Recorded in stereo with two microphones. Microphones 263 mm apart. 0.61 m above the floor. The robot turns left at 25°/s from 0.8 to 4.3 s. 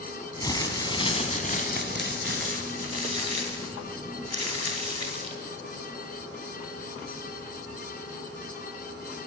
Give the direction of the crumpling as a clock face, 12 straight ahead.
7 o'clock.